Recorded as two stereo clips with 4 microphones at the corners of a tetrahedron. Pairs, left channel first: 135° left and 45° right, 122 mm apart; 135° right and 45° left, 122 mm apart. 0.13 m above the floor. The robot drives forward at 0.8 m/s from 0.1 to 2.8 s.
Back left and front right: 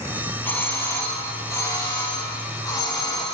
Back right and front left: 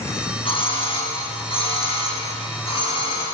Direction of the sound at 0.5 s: 155° right.